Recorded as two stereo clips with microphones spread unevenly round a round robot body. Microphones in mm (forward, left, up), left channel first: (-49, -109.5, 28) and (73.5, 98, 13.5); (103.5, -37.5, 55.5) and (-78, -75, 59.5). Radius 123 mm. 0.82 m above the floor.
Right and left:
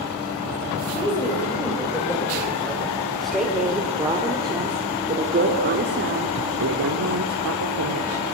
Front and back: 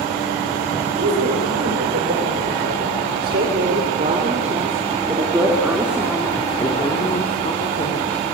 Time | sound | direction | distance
1.0 | a woman speaking | 165° left | 5.5 m